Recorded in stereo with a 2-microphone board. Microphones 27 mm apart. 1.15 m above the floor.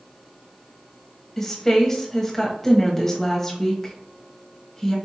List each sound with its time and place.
1.4 s a woman speaking: 15° left (ahead or behind), 0.9 m